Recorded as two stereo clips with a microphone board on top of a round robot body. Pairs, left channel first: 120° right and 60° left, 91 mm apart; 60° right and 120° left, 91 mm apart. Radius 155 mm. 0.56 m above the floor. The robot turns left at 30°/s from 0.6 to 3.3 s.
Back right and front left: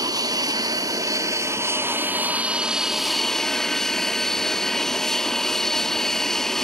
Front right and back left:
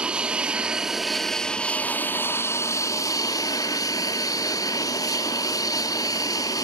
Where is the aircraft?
45° left; by 6.7 s 35° right.